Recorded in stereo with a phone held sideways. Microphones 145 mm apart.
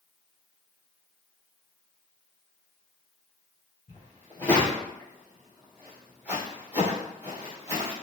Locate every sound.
3.9 s footsteps: 25° left (ahead or behind), 1.6 m; by 7.9 s 20° right (ahead or behind), 2.5 m